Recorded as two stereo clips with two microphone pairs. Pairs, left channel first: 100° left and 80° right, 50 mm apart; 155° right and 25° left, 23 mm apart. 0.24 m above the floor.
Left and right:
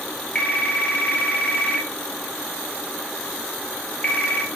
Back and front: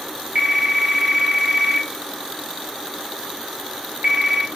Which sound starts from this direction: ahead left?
A phone ringing, at 0.3 s.